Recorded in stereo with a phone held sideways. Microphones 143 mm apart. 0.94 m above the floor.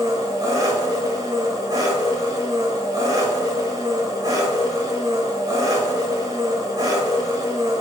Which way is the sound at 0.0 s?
30° right (ahead or behind).